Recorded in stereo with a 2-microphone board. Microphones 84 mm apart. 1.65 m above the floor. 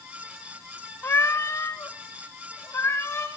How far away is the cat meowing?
About 1.1 m.